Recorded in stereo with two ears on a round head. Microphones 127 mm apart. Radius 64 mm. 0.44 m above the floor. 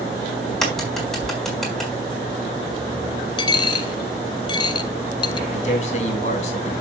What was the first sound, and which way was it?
A crack, centre (ahead or behind).